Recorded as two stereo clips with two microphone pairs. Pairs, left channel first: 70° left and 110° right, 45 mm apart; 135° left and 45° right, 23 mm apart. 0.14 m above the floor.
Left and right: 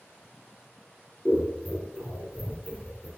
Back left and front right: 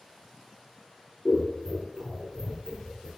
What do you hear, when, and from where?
1.2 s scissors: 85° right, 1.4 m